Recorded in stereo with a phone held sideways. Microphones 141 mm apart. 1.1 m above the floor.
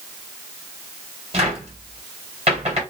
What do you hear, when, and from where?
1.3 s a cupboard door: 45° right (ahead or behind), 1.6 m